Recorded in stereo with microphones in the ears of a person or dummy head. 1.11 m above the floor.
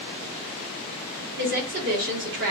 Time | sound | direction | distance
1.4 | a woman speaking | 55° right (ahead or behind) | 1.6 m